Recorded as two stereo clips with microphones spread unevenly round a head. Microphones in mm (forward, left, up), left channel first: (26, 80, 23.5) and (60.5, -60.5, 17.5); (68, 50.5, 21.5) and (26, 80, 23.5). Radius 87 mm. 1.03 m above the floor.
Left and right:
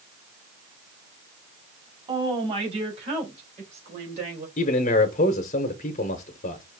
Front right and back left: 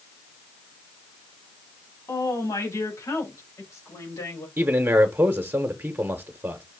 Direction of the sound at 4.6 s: 105° left.